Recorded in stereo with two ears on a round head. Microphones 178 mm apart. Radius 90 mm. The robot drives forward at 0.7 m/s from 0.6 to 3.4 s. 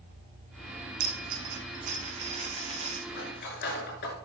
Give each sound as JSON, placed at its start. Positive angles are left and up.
{"t": 1.0, "sound": "a dropped coin", "side_deg": -55, "distance_m": 2.0}
{"t": 3.1, "sound": "cutlery clinking", "side_deg": 55, "distance_m": 6.0}